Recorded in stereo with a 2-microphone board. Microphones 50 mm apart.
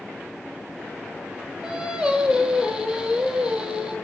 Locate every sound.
1.6 s singing: 15° right (ahead or behind), 3.5 m